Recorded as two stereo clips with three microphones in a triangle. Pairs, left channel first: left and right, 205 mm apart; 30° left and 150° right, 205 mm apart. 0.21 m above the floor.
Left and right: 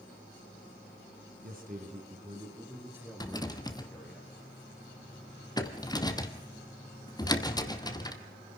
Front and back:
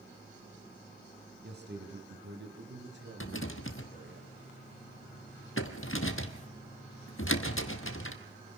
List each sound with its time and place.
1.4 s a man speaking: 125° right, 2.5 m; by 4.2 s 175° left, 5 m
3.2 s a rattle: 20° left, 1.1 m